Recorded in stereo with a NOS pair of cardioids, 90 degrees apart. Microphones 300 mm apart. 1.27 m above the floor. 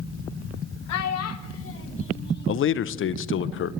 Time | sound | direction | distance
0.9 | a child speaking | 65° left | 1.3 m
2.5 | a man speaking | 45° left | 0.6 m